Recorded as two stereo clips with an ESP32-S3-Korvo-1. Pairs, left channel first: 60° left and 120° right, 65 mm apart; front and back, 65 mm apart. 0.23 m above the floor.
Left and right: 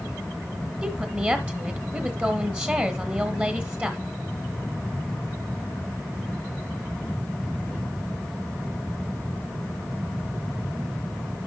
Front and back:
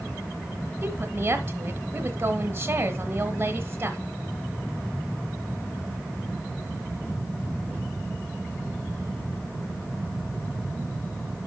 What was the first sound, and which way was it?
A woman speaking, 165° right.